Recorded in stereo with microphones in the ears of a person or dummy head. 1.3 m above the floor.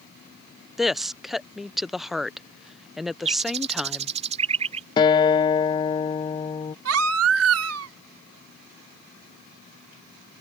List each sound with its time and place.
0.8 s a woman speaking: centre (ahead or behind)
3.2 s a bird: 35° right (ahead or behind)
5.0 s a guitar: 30° left (ahead or behind)
6.8 s a baby crying: 85° right